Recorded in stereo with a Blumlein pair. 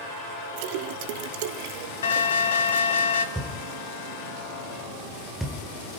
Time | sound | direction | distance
0.6 | a splash | 45° right | 0.9 m
2.0 | an alarm | 60° left | 2 m
3.4 | a thud | 5° right | 1.9 m